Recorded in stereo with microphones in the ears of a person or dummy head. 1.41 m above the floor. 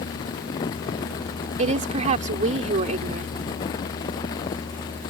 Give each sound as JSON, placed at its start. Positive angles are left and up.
{"t": 1.6, "sound": "a woman speaking", "side_deg": -40}